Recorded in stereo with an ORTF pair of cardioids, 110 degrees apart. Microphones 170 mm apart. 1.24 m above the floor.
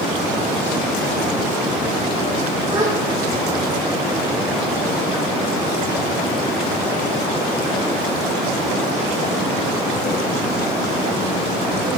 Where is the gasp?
25° right, 4 m.